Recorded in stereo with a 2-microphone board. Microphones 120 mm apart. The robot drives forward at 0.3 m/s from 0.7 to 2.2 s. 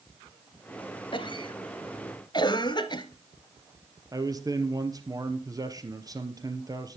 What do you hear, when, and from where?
1.1 s a cough: 45° left (ahead or behind), 1.6 m; by 3.0 s 40° left (ahead or behind), 1.8 m
4.1 s a man speaking: 30° right (ahead or behind), 2 m